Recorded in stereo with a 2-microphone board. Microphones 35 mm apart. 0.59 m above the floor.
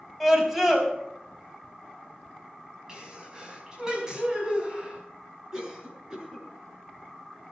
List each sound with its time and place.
0.2 s a scream: 5° right (ahead or behind), 4.5 m
2.9 s a sneeze: 20° right (ahead or behind), 4.5 m
5.5 s a cough: 20° right (ahead or behind), 6.5 m